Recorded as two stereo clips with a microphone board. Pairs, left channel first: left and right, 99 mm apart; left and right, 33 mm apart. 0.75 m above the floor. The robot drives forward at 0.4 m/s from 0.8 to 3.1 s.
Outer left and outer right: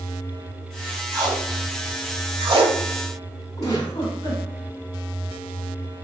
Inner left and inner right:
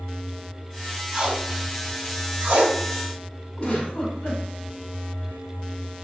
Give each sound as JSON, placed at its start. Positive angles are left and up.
{"t": 1.1, "sound": "tape being pulled", "side_deg": -40, "distance_m": 1.2}
{"t": 3.6, "sound": "a giggle", "side_deg": 40, "distance_m": 2.0}